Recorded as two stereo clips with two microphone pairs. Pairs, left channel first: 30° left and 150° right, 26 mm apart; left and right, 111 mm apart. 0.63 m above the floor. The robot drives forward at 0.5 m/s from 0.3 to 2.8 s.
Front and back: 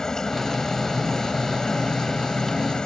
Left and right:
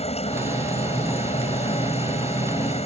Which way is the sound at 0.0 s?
100° left.